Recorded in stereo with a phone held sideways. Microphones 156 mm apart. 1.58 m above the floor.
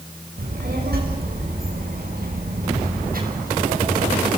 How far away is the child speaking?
About 5 m.